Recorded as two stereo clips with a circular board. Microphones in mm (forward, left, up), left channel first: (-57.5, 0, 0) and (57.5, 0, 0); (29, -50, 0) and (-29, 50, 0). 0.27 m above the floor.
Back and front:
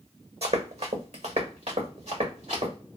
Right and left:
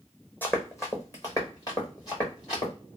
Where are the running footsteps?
10° left, 0.8 m; by 2.7 s 15° right, 2.5 m.